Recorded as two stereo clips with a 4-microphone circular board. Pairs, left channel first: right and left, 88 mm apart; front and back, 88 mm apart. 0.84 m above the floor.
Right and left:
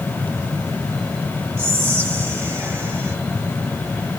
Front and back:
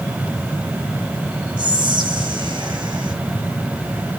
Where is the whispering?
155° left, 1.3 m.